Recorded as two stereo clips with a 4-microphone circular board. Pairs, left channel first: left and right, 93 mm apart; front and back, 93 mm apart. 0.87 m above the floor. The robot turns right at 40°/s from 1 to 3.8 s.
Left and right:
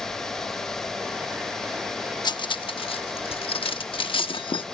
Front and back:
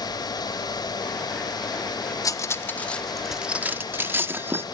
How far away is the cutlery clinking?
About 0.9 m.